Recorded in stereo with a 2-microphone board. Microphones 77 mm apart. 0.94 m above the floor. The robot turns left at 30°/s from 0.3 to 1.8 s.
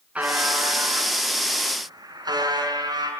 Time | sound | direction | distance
0.1 | a buzzer | 15° right | 6.5 m